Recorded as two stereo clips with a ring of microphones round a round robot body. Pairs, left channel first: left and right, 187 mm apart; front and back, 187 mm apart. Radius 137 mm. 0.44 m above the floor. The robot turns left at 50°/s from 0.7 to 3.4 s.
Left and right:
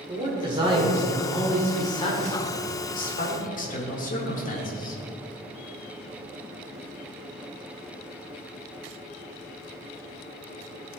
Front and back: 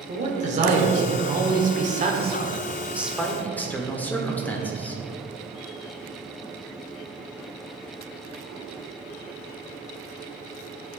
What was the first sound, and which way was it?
A man speaking, 145° right.